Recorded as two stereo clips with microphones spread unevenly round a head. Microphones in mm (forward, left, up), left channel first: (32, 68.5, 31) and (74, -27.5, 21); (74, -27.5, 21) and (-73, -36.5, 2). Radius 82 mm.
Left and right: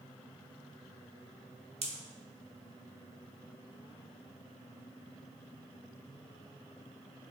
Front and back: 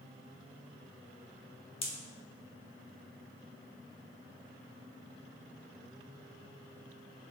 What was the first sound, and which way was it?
A pop, 45° right.